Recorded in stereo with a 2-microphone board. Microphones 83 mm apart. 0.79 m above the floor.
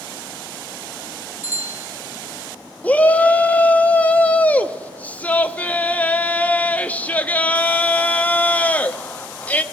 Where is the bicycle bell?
25° right (ahead or behind), 3.5 m.